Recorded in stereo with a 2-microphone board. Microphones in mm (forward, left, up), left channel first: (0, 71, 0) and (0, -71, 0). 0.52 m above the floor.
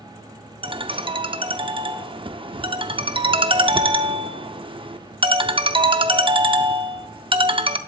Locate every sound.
0.6 s a ringtone: 35° right (ahead or behind), 0.6 m